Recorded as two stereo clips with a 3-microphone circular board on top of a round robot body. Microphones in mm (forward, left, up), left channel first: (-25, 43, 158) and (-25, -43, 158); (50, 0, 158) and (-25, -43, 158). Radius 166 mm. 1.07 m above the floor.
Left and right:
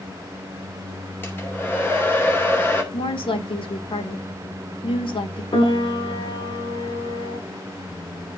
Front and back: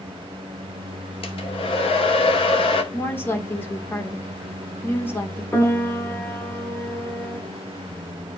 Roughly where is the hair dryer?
Ahead.